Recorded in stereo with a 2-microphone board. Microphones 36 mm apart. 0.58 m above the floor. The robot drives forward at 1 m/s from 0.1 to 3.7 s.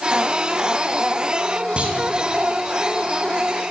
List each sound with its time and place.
1.8 s a clunk: 35° right (ahead or behind), 4 m; by 2.0 s 30° right (ahead or behind), 4 m